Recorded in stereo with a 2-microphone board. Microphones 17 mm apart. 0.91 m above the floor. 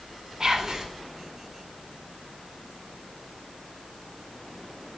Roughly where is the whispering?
Right.